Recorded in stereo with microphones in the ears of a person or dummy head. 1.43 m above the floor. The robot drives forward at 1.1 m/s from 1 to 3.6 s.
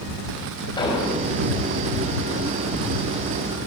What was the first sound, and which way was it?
An explosion, 25° left (ahead or behind).